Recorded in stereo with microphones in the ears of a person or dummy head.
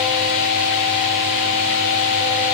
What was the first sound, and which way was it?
Only background noise.